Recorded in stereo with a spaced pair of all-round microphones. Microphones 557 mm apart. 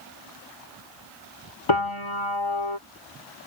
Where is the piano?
55° left (ahead or behind).